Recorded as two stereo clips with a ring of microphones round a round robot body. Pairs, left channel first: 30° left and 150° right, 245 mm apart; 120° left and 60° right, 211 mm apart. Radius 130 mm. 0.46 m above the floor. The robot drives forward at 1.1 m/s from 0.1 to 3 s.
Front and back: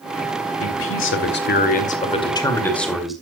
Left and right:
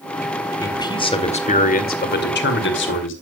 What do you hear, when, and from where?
0.6 s a man speaking: 45° left, 2.5 m; by 3.1 s 120° left, 2.5 m